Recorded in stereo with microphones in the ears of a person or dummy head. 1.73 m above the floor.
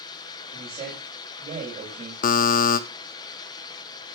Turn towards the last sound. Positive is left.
turn(degrees=50)  # may be behind; listen again after turning